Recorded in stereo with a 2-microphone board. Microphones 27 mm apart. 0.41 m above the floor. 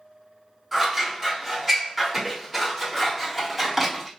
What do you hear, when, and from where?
0.7 s scissors: 10° right (ahead or behind), 1.4 m